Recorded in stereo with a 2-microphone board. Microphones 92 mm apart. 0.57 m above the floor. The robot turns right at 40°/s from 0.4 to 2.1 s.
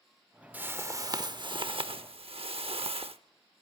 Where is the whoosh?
160° right, 0.8 m; by 3.2 s 100° right, 0.8 m.